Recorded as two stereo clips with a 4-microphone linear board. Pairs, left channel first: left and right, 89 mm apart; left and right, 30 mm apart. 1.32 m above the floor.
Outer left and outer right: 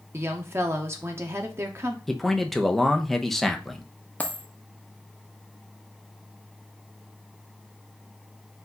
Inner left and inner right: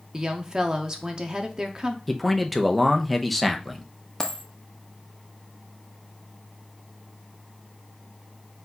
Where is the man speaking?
Centre (ahead or behind), 0.5 m.